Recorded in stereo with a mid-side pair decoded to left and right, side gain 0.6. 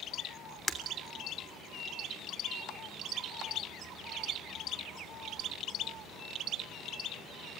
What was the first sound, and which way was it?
Breaking glass, 20° left.